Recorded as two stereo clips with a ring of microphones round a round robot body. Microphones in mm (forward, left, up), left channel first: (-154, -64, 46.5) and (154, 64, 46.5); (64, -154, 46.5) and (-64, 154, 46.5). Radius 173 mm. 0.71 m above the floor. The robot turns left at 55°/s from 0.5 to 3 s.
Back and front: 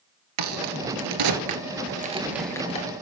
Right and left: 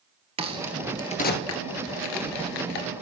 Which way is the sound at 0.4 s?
40° left.